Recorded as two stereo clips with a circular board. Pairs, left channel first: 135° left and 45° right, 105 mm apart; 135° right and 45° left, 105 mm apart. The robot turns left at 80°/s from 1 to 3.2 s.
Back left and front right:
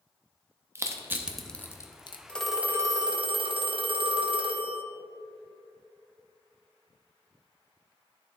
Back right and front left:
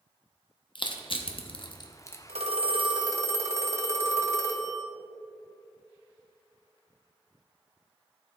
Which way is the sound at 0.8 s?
105° right.